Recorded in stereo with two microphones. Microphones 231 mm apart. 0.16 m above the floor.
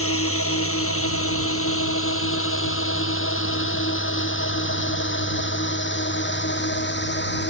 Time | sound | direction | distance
0.0 | a drone | 70° left (ahead or behind) | ?